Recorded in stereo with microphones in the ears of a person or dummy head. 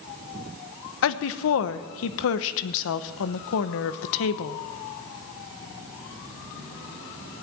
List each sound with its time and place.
1.0 s a woman speaking: 70° left (ahead or behind), 0.9 m